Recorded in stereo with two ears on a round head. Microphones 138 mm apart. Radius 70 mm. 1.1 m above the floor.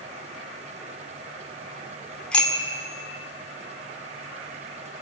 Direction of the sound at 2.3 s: 5° left (ahead or behind).